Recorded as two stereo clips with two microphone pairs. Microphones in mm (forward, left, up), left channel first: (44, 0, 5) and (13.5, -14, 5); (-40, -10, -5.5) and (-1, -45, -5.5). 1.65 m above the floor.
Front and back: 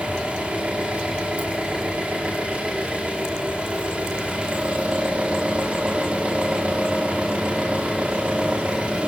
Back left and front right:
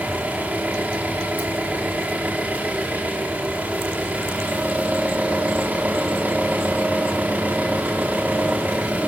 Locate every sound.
0.0 s an engine running: 100° right, 4 m